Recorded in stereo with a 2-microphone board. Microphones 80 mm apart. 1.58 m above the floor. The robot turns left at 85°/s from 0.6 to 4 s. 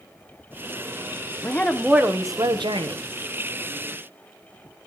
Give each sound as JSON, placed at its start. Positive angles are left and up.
{"t": 1.4, "sound": "a woman speaking", "azimuth_deg": 30, "distance_m": 1.2}